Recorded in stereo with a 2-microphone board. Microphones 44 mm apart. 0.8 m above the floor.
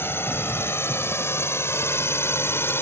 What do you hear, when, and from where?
0.0 s a drone: 60° left (ahead or behind)